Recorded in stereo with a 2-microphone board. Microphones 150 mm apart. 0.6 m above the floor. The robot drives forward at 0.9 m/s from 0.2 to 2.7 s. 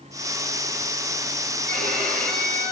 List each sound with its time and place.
1.7 s a violin: 70° right (ahead or behind), 7 m; by 2.7 s 80° right, 6.5 m